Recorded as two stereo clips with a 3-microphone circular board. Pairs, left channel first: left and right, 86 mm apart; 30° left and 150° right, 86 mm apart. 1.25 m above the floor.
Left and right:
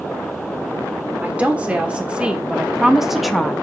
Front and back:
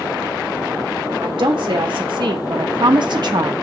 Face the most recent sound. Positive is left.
turn(degrees=175)